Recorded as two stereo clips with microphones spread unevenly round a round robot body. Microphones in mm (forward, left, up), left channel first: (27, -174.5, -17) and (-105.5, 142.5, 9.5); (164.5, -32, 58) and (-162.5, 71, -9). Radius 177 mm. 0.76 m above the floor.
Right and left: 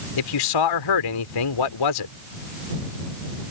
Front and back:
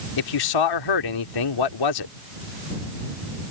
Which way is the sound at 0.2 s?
45° right.